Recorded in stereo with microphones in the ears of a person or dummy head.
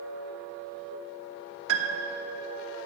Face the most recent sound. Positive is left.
turn(degrees=-75)  # may be behind; listen again after turning